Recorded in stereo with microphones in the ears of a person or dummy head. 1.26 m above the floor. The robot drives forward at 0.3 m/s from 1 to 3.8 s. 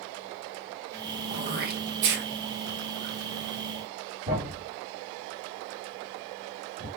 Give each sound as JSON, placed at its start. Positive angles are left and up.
{"t": 1.3, "sound": "throat clearing", "side_deg": -45, "distance_m": 0.7}
{"t": 4.3, "sound": "a thud", "side_deg": -40, "distance_m": 1.8}